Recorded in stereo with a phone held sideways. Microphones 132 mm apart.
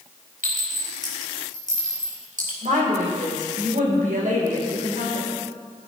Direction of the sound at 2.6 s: 80° right.